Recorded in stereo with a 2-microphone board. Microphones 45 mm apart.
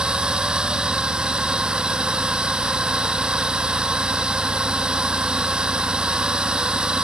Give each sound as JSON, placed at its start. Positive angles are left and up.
{"t": 0.0, "sound": "a drone", "side_deg": -20}